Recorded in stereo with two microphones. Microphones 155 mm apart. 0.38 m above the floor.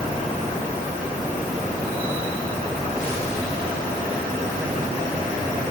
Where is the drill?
No drill in this recording.